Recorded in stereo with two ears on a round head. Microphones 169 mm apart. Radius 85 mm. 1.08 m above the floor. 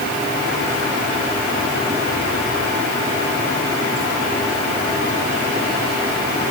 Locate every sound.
Only background noise.